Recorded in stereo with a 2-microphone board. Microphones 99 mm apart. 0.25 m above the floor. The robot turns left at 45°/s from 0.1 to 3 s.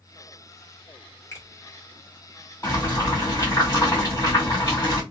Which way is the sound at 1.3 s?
25° left (ahead or behind).